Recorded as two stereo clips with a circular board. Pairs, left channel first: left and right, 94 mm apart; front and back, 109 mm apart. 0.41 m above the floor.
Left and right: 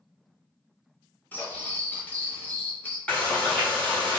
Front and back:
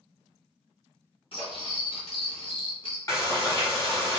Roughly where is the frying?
Ahead.